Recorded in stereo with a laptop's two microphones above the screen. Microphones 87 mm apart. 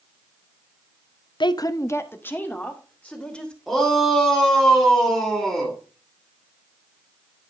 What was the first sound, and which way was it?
A woman speaking, 60° left (ahead or behind).